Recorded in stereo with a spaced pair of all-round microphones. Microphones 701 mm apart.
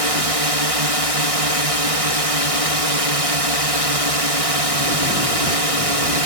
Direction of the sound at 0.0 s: 50° right (ahead or behind).